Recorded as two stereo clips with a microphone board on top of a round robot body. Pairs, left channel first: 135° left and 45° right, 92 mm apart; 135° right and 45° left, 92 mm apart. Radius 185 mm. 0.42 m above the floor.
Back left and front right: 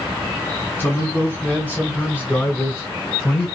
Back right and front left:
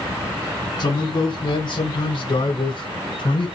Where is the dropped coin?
No dropped coin in this recording.